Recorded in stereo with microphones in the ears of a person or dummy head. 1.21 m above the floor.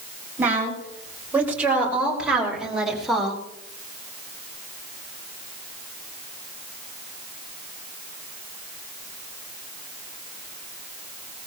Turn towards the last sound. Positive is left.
turn(degrees=-5)  # may be behind; listen again after turning